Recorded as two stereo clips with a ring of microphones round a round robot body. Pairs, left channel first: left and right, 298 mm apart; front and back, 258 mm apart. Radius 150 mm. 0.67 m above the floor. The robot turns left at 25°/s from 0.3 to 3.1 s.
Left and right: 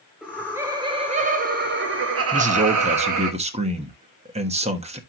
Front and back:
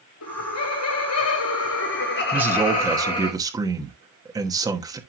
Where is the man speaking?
105° right, 1.1 m; by 5.0 s 125° right, 1.1 m.